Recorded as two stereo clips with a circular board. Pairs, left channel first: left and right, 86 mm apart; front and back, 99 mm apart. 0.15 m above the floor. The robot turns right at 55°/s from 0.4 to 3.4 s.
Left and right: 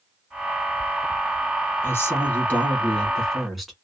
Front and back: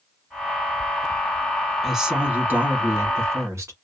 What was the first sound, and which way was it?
A woman speaking, 95° left.